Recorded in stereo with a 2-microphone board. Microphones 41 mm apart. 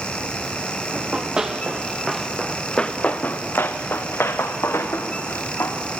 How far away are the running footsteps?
About 2.5 m.